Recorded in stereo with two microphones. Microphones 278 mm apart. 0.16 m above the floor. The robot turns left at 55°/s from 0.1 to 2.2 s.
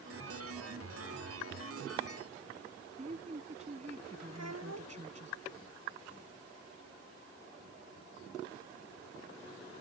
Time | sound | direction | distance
3.0 | a woman speaking | 25° right (ahead or behind) | ?
4.3 | a child speaking | 65° right (ahead or behind) | ?